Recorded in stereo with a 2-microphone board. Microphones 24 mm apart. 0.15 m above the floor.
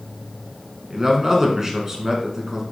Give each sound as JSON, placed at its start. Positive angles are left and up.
{"t": 0.9, "sound": "a man speaking", "side_deg": -25, "distance_m": 1.3}